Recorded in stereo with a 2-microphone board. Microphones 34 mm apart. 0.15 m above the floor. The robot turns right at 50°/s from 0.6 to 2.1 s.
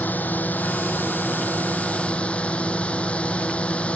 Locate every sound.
0.0 s a drone: 60° left; by 4.0 s 135° left